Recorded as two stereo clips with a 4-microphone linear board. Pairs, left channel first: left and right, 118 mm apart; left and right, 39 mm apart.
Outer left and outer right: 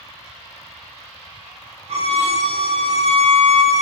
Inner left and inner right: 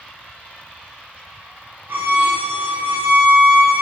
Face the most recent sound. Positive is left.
turn(degrees=-60)  # may be behind; listen again after turning